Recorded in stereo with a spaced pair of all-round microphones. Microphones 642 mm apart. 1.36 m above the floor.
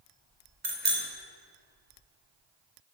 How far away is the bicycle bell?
About 4 m.